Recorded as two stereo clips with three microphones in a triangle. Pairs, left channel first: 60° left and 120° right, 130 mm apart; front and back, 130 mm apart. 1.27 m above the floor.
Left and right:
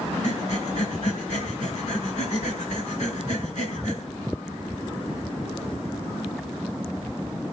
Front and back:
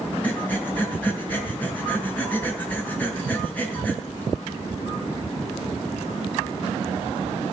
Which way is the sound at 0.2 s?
80° left.